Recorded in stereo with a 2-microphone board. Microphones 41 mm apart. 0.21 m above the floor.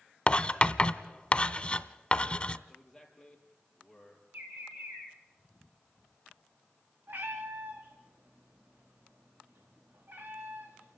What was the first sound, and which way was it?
Writing, 25° left (ahead or behind).